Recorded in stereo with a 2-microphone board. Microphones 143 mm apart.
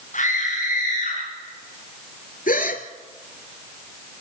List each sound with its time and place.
0.1 s a scream: 60° left (ahead or behind), 6 m; by 1.2 s 65° left (ahead or behind), 6.5 m
2.5 s a gasp: 75° left (ahead or behind), 2 m